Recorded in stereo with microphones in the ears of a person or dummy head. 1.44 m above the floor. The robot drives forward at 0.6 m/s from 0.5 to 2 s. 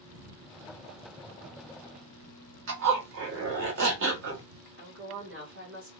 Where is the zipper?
70° right (ahead or behind), 1.2 m.